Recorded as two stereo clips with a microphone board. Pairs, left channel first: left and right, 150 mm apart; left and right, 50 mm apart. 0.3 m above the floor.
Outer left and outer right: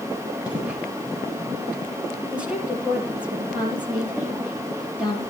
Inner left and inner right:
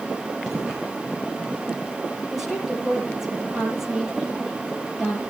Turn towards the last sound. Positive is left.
turn(degrees=-10)  # may be behind; listen again after turning